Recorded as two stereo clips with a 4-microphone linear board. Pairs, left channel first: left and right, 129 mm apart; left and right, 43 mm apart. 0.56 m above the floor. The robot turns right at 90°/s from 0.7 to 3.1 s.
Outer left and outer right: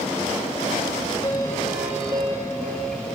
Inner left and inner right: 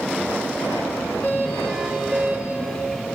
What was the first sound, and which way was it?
A doorbell, 135° left.